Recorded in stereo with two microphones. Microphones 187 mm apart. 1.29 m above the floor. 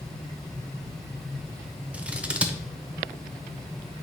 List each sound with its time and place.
1.9 s scissors: 5° right (ahead or behind), 0.8 m